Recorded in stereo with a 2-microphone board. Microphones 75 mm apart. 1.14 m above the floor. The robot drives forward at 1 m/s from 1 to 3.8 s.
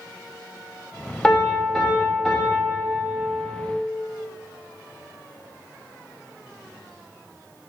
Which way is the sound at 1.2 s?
10° left (ahead or behind).